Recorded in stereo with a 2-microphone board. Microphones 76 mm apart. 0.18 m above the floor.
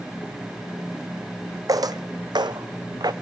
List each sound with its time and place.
1.7 s footsteps: 55° right (ahead or behind), 0.5 m; by 3.1 s 65° right (ahead or behind), 0.9 m